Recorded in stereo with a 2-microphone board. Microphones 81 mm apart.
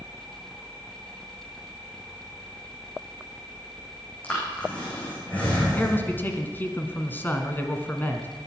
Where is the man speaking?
25° left (ahead or behind), 1.7 m.